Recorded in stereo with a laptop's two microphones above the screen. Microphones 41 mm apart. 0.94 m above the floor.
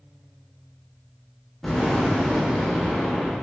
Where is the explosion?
10° left (ahead or behind), 1.1 m.